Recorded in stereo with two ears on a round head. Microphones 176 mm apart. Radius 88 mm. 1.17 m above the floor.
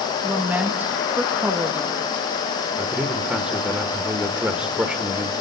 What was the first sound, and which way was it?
A woman speaking, 10° right (ahead or behind).